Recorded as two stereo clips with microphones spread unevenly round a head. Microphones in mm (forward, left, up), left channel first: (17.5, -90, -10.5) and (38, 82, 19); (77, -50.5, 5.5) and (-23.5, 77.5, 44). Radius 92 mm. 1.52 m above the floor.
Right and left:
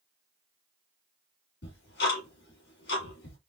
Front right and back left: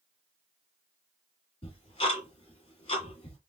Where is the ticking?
120° right, 2 m.